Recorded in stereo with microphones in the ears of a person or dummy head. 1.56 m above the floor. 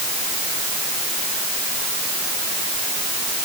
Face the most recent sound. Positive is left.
No sound to turn to.